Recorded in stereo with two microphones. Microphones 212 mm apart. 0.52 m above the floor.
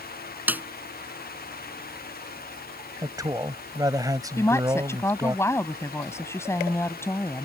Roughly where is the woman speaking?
Centre.